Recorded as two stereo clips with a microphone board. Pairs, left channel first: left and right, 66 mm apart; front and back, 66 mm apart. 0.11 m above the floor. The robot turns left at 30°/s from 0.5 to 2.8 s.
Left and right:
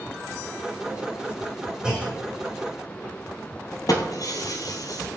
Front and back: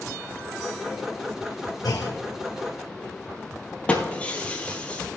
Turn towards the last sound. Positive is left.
turn(degrees=70)